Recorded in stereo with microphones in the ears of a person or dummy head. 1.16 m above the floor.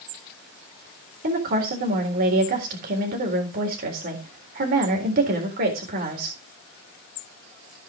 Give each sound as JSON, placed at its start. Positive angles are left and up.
{"t": 1.2, "sound": "a woman speaking", "side_deg": -45, "distance_m": 3.5}